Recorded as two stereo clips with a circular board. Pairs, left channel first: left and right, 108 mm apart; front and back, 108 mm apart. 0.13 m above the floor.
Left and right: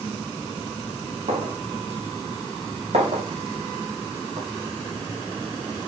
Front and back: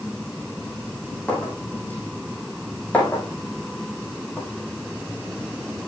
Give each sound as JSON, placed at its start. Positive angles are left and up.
{"t": 1.3, "sound": "a clink", "azimuth_deg": -80, "distance_m": 4.0}